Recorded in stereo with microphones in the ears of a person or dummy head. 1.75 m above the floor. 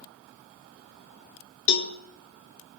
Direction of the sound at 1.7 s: 65° left (ahead or behind).